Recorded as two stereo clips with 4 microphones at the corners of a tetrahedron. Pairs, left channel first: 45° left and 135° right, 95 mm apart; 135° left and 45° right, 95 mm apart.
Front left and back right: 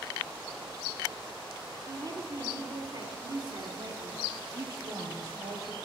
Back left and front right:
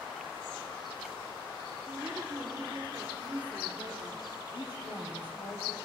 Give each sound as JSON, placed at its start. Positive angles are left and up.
{"t": 1.9, "sound": "a woman speaking", "azimuth_deg": -115, "distance_m": 1.9}
{"t": 4.5, "sound": "a woman speaking", "azimuth_deg": 175, "distance_m": 3.5}